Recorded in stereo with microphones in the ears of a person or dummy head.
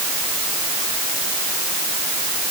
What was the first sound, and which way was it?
Only background noise.